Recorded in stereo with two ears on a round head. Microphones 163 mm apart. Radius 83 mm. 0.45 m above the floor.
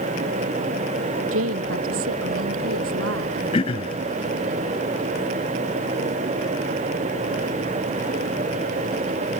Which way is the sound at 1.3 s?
85° right.